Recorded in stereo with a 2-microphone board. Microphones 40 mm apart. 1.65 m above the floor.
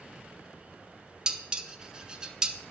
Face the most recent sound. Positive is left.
turn(degrees=-20)  # may be behind; listen again after turning